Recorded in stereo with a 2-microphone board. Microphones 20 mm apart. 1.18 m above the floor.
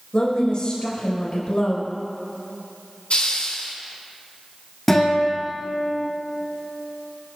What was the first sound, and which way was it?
A woman speaking, 50° left (ahead or behind).